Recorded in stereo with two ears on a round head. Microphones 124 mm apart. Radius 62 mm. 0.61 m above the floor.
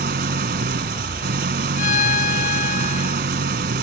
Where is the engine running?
75° right (ahead or behind).